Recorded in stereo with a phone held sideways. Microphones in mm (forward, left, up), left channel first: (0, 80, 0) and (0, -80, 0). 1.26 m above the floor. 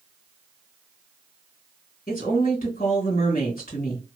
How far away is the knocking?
No knocking in this recording.